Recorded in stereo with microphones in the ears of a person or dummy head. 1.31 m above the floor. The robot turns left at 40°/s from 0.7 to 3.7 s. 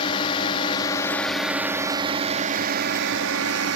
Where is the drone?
25° left; by 3.8 s 95° right.